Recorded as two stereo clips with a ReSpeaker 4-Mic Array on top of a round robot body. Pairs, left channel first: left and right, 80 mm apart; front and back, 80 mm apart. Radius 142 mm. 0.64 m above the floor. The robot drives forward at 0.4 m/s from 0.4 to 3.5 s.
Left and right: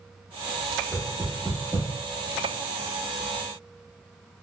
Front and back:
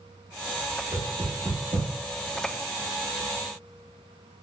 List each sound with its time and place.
0.9 s knocking: 160° left, 1.2 m; by 1.9 s 165° left, 1.5 m